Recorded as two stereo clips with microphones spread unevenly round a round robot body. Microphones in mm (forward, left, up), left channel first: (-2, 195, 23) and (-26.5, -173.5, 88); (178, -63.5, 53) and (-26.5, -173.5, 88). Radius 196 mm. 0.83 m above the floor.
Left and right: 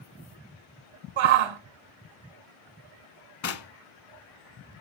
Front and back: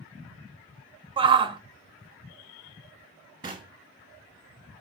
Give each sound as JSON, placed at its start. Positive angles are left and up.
{"t": 1.2, "sound": "a shout", "azimuth_deg": -80, "distance_m": 2.0}
{"t": 3.4, "sound": "knocking", "azimuth_deg": 130, "distance_m": 1.3}